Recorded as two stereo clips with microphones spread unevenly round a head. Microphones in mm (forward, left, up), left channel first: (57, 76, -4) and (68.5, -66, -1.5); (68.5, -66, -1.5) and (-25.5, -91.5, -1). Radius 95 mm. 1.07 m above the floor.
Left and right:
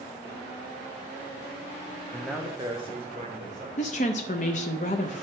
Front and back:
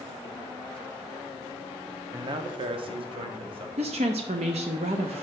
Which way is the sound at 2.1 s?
155° left.